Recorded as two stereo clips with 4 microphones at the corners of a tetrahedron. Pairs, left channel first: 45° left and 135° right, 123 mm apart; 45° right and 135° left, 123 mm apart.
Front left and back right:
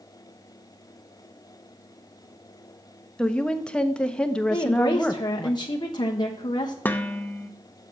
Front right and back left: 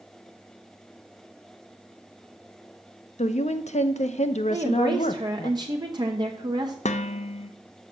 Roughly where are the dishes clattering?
Ahead right.